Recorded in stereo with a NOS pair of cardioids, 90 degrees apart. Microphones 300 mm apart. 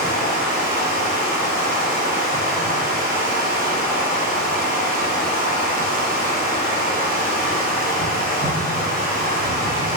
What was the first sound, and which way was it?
Running water, 30° right.